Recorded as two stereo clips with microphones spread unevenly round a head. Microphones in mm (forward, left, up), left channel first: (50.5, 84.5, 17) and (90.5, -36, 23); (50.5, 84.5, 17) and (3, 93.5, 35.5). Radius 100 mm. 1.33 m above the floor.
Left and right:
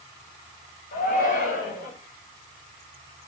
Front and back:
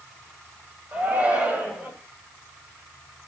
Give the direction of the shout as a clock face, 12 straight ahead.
8 o'clock.